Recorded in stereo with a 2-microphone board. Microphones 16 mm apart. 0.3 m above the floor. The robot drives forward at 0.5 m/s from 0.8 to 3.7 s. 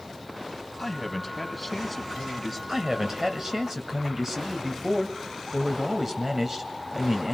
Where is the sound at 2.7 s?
20° right (ahead or behind), 1.5 m.